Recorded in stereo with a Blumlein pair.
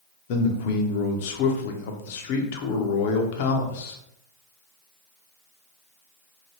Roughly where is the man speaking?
Ahead left.